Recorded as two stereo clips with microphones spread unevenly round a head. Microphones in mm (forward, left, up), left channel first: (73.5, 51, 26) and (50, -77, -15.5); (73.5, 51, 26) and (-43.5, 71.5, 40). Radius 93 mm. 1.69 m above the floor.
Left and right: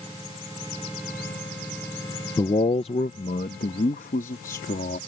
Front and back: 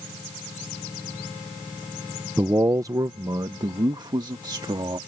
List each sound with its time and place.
2.4 s a man speaking: 110° left; by 5.0 s 115° left